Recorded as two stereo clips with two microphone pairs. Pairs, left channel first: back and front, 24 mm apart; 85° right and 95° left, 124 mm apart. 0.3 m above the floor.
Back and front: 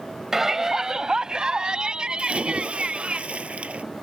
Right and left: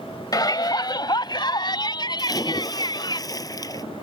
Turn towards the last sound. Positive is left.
turn(degrees=-25)